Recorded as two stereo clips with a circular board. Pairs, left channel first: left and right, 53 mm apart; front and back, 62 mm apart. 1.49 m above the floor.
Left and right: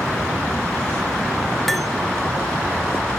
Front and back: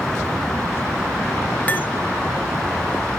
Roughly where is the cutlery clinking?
Ahead.